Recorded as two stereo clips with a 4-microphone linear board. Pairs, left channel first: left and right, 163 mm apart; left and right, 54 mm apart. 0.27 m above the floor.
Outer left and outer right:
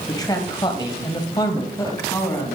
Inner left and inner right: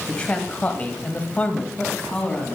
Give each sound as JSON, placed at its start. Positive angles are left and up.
{"t": 0.1, "sound": "a man speaking", "side_deg": 20, "distance_m": 1.8}